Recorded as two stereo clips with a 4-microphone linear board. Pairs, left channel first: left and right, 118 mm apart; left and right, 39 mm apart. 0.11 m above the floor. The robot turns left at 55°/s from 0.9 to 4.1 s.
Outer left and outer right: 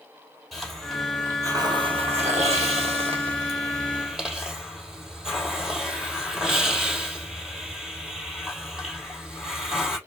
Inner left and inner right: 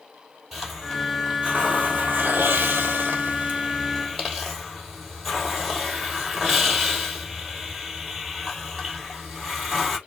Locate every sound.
0.5 s a hiss: straight ahead, 3 m; by 10.0 s 175° right, 3 m